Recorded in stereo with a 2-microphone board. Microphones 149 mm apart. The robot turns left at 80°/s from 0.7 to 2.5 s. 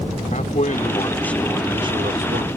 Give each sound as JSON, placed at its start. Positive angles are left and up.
{"t": 0.3, "sound": "a man speaking", "azimuth_deg": 55}